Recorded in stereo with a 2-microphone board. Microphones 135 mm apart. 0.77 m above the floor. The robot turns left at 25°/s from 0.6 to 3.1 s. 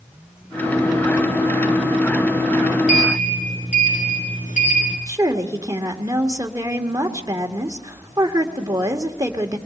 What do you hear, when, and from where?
2.9 s a sliding door: 65° left (ahead or behind), 4.5 m; by 5.0 s 70° left (ahead or behind), 4.5 m
5.1 s a woman speaking: 25° right (ahead or behind), 1.9 m